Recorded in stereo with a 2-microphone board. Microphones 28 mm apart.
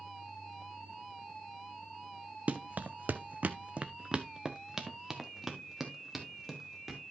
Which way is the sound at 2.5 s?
60° right (ahead or behind).